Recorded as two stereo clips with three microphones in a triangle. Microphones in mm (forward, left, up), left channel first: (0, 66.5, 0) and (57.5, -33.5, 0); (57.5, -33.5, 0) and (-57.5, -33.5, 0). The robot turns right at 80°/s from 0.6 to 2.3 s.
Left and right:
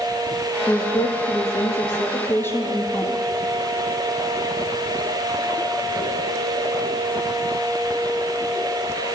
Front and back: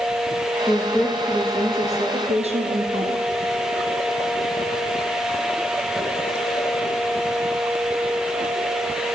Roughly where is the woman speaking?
Ahead left.